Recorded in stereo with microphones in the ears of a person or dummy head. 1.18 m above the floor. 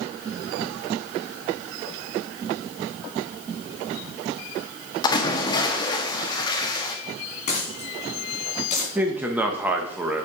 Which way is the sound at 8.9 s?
10° right (ahead or behind).